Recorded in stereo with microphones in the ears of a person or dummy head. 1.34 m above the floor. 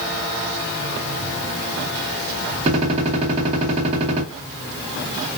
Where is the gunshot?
30° right (ahead or behind), 2 m.